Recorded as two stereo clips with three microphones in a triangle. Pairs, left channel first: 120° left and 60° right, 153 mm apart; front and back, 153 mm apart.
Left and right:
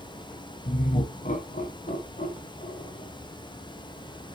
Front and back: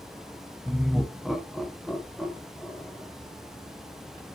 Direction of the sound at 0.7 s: 95° left.